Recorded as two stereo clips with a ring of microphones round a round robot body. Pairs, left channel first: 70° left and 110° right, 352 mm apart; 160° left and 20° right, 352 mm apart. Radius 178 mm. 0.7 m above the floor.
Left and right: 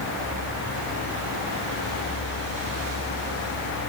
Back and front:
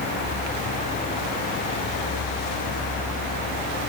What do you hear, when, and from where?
Only background noise.